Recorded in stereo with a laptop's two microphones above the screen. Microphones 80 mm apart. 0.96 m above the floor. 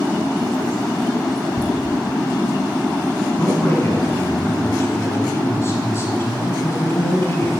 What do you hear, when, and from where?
1.6 s laughter: 75° right (ahead or behind), 1.0 m
3.4 s a man speaking: 35° left (ahead or behind), 5.5 m